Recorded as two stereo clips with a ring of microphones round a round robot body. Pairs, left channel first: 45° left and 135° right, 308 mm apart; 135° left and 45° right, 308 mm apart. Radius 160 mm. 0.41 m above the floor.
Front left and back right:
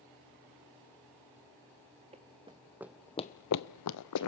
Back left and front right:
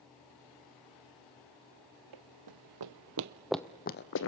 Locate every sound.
2.1 s running footsteps: 65° right, 1.4 m; by 4.3 s 85° left, 1.1 m